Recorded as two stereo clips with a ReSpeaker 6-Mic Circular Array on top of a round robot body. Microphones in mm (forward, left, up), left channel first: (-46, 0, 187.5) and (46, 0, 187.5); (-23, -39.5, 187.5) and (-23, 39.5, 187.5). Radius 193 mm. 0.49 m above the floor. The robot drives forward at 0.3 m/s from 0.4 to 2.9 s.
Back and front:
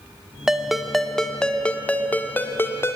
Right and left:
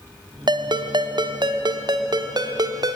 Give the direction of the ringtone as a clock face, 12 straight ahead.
9 o'clock.